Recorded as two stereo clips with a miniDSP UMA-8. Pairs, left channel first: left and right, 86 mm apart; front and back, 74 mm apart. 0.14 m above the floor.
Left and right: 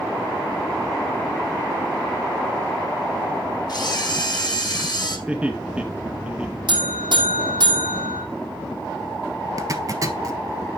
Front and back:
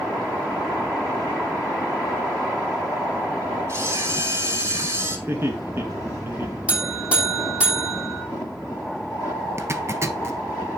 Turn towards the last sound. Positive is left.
turn(degrees=-130)